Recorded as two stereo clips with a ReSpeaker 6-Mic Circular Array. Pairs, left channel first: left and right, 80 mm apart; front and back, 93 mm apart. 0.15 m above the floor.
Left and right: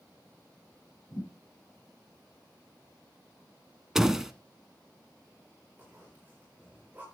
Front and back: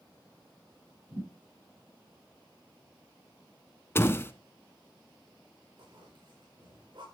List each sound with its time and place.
1.1 s a thud: 145° left, 8 m
4.0 s a door slam: 15° right, 0.8 m
5.8 s a zipper: 160° right, 8 m